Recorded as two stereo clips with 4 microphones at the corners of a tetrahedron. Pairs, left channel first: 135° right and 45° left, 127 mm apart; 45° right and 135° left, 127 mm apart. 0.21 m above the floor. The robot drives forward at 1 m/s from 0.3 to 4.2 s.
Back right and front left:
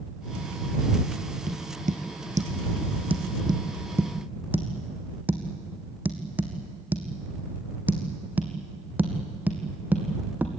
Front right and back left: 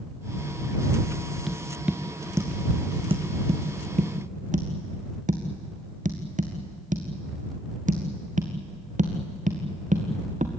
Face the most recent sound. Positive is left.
turn(degrees=120)